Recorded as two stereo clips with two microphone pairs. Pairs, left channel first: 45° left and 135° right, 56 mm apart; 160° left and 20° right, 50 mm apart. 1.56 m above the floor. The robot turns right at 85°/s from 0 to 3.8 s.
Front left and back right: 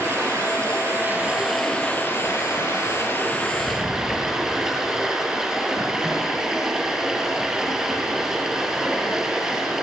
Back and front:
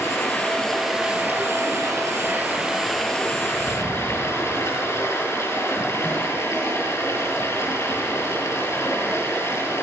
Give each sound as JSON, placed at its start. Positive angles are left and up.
{"t": 0.0, "sound": "running water", "azimuth_deg": 180, "distance_m": 8.0}